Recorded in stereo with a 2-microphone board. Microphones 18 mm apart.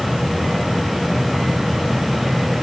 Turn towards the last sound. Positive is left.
No sound to turn to.